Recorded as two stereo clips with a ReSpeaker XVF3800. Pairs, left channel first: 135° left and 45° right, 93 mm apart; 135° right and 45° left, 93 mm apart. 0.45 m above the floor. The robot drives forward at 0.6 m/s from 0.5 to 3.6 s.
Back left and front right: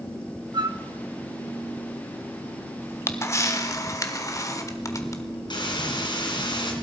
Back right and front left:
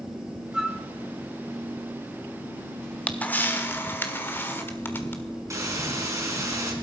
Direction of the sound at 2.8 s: 155° left.